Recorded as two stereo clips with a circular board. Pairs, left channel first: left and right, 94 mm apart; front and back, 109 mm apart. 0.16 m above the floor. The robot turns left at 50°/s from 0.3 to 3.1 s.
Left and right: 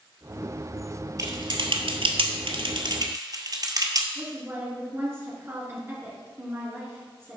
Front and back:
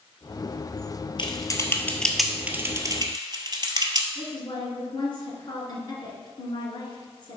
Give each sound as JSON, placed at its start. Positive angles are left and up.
{"t": 1.2, "sound": "typing on a keyboard", "azimuth_deg": -40, "distance_m": 0.9}
{"t": 4.2, "sound": "a woman speaking", "azimuth_deg": -35, "distance_m": 2.5}